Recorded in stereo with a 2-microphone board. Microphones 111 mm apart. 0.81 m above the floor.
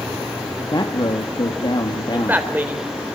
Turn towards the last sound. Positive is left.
turn(degrees=-15)  # may be behind; listen again after turning